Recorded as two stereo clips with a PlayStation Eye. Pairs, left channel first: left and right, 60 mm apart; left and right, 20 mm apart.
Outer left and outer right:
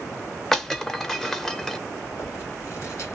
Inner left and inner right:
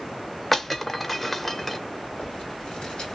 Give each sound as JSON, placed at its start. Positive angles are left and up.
{"t": 0.5, "sound": "breaking glass", "side_deg": 5, "distance_m": 0.6}
{"t": 2.0, "sound": "chewing", "side_deg": 50, "distance_m": 1.7}